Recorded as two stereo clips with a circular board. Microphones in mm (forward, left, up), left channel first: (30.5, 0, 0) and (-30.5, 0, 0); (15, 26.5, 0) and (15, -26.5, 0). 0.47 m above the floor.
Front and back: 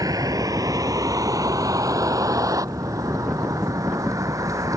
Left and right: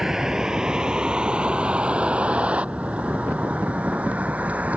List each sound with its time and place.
0.0 s a vehicle: 170° right; by 4.8 s 150° right